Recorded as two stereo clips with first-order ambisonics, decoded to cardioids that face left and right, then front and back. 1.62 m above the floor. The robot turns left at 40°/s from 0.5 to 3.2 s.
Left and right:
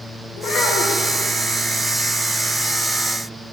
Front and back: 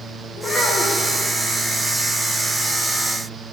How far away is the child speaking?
About 2.5 m.